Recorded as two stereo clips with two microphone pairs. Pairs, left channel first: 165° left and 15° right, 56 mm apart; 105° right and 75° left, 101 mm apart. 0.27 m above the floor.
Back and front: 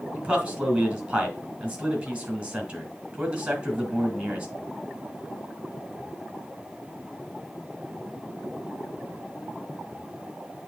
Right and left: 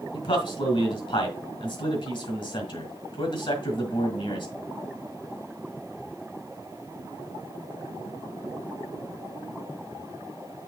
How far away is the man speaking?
About 3 m.